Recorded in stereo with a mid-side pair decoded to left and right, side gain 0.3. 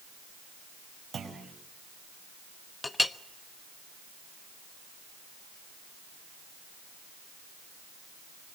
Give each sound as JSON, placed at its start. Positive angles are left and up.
{"t": 1.1, "sound": "a clunk", "azimuth_deg": -65, "distance_m": 5.5}
{"t": 2.8, "sound": "a clink", "azimuth_deg": 30, "distance_m": 1.1}